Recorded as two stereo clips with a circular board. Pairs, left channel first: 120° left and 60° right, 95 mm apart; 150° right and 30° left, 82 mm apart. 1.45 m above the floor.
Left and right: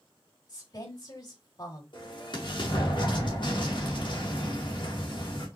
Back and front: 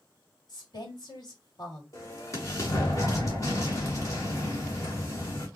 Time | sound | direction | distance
0.5 | a woman speaking | 170° left | 2.5 m
1.9 | an explosion | 160° left | 2 m